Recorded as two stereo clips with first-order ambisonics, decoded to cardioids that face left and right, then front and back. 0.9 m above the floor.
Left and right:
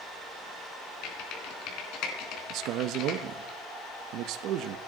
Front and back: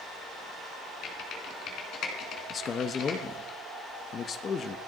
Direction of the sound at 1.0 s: 50° left.